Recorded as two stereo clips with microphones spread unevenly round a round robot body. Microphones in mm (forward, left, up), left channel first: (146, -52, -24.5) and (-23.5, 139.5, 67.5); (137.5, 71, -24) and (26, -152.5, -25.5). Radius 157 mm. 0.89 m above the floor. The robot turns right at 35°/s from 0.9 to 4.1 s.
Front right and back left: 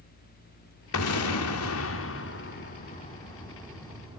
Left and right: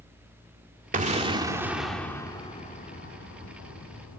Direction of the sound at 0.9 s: 60° right.